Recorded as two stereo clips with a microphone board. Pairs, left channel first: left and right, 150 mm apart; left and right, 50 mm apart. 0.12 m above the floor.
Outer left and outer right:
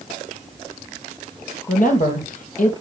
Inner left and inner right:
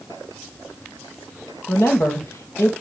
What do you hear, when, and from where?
1.7 s a woman speaking: 60° left (ahead or behind), 3.5 m